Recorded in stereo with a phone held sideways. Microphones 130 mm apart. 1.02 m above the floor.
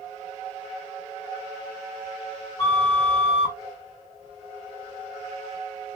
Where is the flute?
25° left (ahead or behind), 1.4 m.